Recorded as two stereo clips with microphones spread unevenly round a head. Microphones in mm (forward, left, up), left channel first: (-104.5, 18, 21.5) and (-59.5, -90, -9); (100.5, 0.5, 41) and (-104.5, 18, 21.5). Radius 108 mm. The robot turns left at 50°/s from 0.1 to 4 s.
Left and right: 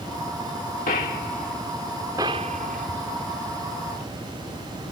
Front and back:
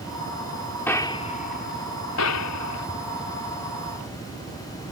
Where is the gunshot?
75° left; by 2.9 s 25° right.